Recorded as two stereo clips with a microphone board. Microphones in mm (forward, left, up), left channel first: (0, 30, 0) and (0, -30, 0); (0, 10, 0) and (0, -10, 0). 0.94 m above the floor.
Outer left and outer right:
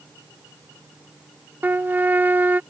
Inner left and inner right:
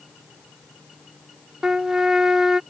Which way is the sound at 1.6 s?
30° right (ahead or behind).